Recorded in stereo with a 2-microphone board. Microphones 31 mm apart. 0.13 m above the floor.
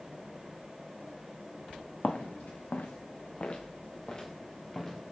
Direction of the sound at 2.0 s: 70° left (ahead or behind).